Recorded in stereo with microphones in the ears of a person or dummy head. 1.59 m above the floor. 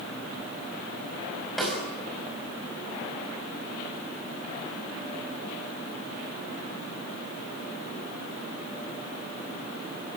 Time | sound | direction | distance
1.6 | a snare drum | centre (ahead or behind) | 4.5 m